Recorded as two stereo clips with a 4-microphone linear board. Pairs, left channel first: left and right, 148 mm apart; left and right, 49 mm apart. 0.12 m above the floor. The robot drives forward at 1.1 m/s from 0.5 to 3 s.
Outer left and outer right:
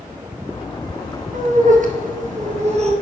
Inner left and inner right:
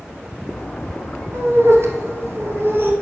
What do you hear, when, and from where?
1.3 s laughter: 55° right (ahead or behind), 2 m; by 2.9 s 45° right (ahead or behind), 2.5 m